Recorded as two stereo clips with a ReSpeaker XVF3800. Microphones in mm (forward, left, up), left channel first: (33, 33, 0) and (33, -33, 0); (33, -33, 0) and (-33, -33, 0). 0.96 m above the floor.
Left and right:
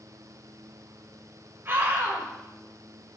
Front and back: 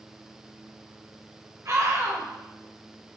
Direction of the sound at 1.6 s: 145° right.